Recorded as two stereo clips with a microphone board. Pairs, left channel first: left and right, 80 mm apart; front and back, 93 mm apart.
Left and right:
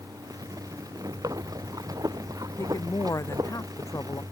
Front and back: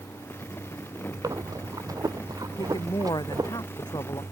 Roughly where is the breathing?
Behind right.